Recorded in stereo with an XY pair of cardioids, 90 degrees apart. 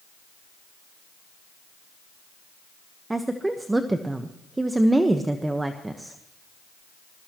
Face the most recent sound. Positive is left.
turn(degrees=-20)